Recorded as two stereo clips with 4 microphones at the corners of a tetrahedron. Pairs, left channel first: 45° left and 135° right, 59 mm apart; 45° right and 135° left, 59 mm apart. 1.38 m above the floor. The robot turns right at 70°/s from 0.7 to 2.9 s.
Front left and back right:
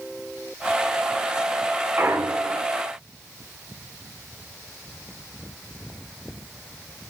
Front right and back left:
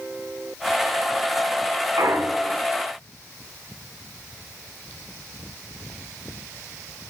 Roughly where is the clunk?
Behind.